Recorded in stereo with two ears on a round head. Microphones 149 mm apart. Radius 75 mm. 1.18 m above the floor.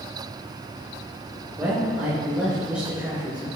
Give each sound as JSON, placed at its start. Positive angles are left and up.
{"t": 1.6, "sound": "a man speaking", "side_deg": -5, "distance_m": 4.0}